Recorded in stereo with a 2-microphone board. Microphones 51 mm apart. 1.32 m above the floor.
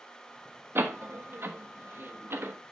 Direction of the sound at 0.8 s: 50° right (ahead or behind).